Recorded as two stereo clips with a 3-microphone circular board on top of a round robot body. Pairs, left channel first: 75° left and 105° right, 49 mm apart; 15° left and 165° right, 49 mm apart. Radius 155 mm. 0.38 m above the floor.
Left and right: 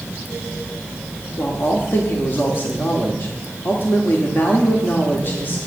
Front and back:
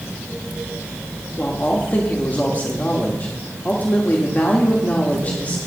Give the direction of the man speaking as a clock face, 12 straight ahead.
10 o'clock.